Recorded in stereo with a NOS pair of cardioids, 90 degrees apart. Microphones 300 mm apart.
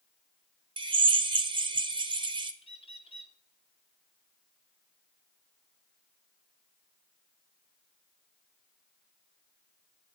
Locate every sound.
0.8 s a drill: 15° right, 0.8 m
2.6 s a bird: 20° left, 1.2 m